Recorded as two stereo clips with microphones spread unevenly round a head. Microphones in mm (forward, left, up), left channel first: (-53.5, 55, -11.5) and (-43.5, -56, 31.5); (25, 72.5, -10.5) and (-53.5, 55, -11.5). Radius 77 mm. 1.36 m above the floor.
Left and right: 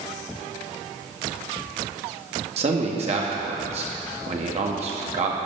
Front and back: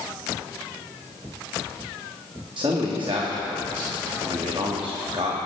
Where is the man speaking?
110° right, 2 m.